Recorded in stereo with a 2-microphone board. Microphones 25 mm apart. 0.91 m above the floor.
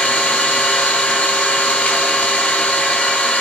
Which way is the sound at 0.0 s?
65° left (ahead or behind).